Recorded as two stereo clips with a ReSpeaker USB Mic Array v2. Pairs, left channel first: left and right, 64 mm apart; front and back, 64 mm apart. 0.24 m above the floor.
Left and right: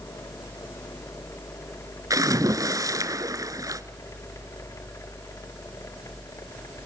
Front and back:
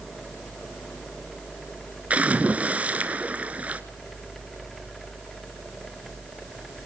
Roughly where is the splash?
Right.